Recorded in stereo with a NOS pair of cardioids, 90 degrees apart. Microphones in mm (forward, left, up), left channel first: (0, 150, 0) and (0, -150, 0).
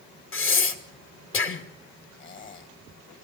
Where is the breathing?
45° left, 2.5 m.